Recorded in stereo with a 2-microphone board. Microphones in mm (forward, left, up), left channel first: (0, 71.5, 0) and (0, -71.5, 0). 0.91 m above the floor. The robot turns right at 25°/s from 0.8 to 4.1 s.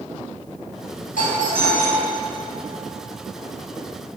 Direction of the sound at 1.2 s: 85° left.